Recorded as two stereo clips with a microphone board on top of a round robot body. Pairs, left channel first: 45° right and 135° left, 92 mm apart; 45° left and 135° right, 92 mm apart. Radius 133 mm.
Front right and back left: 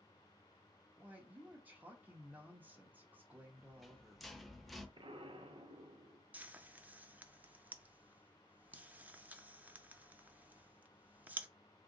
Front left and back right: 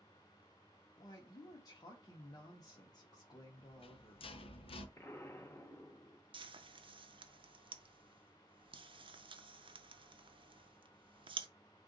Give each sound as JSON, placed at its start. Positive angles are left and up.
{"t": 1.0, "sound": "a woman speaking", "azimuth_deg": 70, "distance_m": 1.0}
{"t": 3.6, "sound": "a rattle", "azimuth_deg": 45, "distance_m": 0.7}
{"t": 5.0, "sound": "an explosion", "azimuth_deg": 110, "distance_m": 0.7}
{"t": 6.3, "sound": "frying", "azimuth_deg": -155, "distance_m": 0.6}